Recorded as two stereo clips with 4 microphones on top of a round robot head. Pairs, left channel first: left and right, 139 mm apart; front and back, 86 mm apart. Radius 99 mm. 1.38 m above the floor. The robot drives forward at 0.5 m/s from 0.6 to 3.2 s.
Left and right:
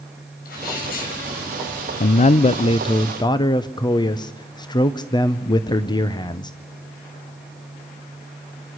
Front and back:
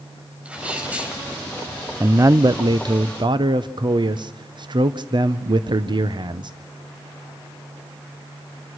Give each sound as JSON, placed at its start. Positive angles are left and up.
{"t": 0.5, "sound": "a sneeze", "azimuth_deg": 100, "distance_m": 6.5}
{"t": 2.0, "sound": "a man speaking", "azimuth_deg": 115, "distance_m": 0.6}